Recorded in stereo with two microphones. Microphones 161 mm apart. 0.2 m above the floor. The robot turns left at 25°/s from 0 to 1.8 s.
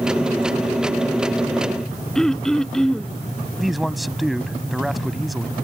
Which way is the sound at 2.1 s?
5° left (ahead or behind).